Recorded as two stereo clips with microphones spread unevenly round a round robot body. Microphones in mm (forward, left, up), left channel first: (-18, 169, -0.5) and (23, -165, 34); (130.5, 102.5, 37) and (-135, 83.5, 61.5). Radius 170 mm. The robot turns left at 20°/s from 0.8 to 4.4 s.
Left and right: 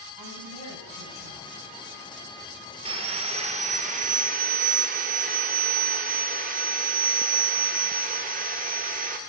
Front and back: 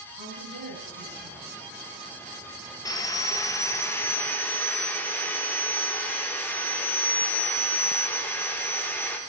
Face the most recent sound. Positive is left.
turn(degrees=-50)